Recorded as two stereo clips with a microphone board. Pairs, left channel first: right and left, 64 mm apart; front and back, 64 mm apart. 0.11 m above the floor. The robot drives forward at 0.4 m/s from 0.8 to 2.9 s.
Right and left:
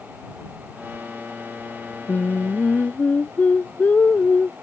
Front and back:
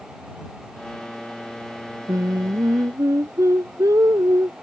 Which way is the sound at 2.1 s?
150° right.